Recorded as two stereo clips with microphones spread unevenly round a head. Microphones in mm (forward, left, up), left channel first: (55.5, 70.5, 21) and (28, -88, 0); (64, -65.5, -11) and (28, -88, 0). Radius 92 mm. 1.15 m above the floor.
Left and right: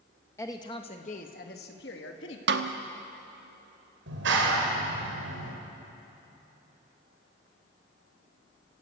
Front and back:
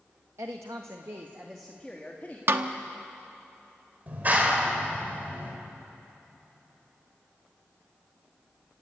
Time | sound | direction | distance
0.4 | a woman speaking | 160° left | 1.4 m
2.5 | a snare drum | 135° right | 1.1 m
4.1 | a clap | 105° right | 4 m